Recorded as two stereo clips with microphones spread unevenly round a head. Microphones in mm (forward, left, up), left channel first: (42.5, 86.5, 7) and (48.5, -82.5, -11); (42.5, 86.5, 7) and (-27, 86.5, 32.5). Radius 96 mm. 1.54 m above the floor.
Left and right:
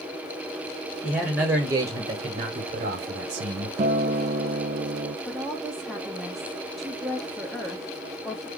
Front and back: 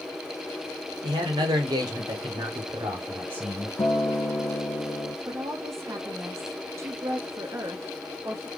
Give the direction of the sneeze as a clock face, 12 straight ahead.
I don't hear a sneeze.